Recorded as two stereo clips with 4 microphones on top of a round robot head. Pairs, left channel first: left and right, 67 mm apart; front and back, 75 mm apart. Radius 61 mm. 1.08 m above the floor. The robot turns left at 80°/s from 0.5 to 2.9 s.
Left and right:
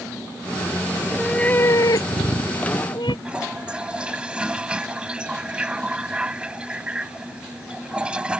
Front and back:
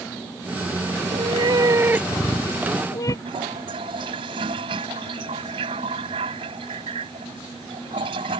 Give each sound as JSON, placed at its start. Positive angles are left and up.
{"t": 1.0, "sound": "a cat meowing", "azimuth_deg": -165}
{"t": 3.2, "sound": "a toilet flushing", "azimuth_deg": -165}